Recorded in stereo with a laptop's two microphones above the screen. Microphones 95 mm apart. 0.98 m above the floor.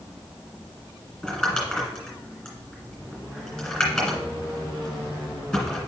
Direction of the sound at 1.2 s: 10° left (ahead or behind).